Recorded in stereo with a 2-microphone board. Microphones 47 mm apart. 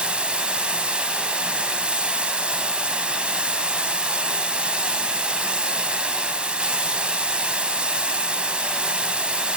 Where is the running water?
25° right (ahead or behind), 2.5 m.